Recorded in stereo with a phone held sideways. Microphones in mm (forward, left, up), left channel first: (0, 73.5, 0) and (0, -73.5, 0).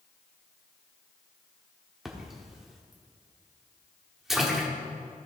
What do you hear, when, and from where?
2.0 s a splash: 5° right (ahead or behind), 1.3 m